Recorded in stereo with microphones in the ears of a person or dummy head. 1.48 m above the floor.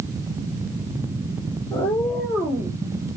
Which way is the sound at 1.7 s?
20° left (ahead or behind).